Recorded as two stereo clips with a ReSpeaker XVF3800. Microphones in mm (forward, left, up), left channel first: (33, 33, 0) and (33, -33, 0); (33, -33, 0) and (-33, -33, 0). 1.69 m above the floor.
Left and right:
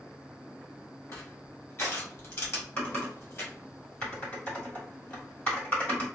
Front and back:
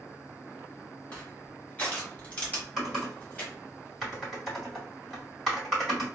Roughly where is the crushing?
Ahead left.